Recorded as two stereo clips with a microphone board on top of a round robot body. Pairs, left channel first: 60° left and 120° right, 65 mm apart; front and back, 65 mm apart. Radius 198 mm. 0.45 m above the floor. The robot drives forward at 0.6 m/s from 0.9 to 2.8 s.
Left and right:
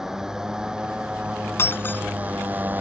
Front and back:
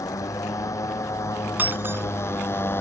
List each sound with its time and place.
0.0 s a motorcycle: 35° right; by 2.8 s 55° right
1.6 s breaking glass: 115° left; by 2.0 s 120° left